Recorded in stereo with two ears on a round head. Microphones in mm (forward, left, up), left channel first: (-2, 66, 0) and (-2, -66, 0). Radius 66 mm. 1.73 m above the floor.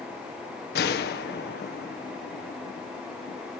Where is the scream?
No scream in this recording.